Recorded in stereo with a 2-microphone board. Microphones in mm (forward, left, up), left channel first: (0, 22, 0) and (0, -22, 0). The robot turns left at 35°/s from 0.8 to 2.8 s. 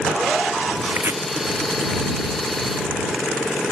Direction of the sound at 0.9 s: 65° right (ahead or behind).